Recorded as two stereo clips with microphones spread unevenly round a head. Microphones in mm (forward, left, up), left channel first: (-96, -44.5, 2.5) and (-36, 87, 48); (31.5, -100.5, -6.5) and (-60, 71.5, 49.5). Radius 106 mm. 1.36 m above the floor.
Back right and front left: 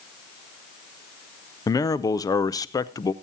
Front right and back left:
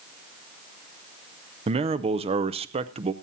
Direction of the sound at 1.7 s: 175° left.